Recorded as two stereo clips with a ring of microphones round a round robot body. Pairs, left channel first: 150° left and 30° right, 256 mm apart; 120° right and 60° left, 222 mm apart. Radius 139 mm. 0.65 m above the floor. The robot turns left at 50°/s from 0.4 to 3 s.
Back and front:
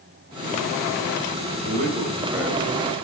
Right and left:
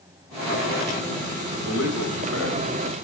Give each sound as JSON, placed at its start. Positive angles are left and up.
{"t": 1.6, "sound": "a man speaking", "azimuth_deg": -80, "distance_m": 3.0}